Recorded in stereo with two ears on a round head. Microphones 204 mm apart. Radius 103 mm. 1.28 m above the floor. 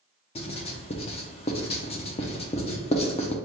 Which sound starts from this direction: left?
Writing, at 0.3 s.